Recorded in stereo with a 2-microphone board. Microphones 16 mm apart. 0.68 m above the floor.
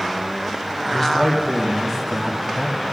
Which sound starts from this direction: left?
A man speaking, at 0.8 s.